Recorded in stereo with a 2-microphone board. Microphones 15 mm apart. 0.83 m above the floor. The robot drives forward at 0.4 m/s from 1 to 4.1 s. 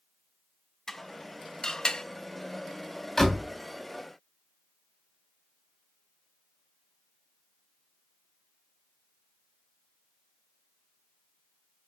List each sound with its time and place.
0.9 s dishes clattering: 30° left (ahead or behind), 0.7 m; by 2.0 s 50° left (ahead or behind), 0.5 m
3.2 s a door slam: 30° left (ahead or behind), 2 m; by 3.5 s 25° left (ahead or behind), 2.5 m